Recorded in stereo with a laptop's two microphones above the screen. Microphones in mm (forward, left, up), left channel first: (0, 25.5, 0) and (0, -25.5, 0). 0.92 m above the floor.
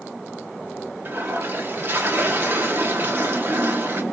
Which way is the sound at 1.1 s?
45° right (ahead or behind).